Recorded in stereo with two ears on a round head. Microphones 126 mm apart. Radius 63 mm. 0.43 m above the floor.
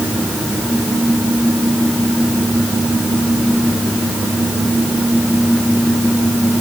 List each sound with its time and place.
Only background noise.